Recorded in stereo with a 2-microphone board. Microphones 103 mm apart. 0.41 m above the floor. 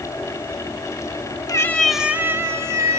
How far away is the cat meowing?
About 0.6 m.